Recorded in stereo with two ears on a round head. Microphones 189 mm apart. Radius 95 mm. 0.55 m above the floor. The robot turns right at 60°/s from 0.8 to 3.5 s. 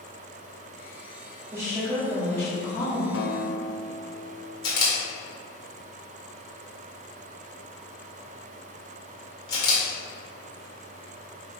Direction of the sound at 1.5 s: 15° right (ahead or behind).